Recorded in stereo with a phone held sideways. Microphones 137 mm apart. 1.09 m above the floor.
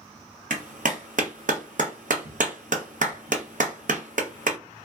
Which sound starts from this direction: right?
A clap, at 0.5 s.